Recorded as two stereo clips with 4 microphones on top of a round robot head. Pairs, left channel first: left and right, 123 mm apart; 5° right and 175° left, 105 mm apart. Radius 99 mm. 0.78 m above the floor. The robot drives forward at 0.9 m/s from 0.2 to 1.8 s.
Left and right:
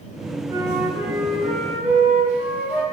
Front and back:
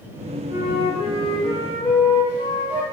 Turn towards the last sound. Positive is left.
turn(degrees=-165)